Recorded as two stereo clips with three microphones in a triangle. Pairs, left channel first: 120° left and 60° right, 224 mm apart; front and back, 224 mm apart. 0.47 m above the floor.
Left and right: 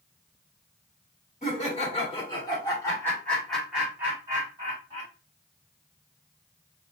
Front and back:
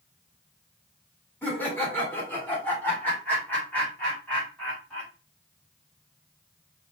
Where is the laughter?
80° left, 1.8 m; by 5.1 s 85° right, 1.5 m.